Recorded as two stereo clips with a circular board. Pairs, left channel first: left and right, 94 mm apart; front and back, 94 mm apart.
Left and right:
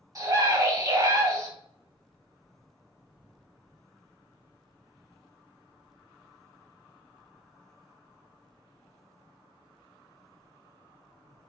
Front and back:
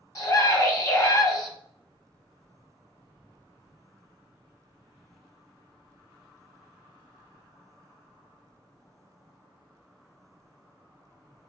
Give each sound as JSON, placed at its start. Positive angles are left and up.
{"t": 0.1, "sound": "a scream", "azimuth_deg": -45, "distance_m": 1.7}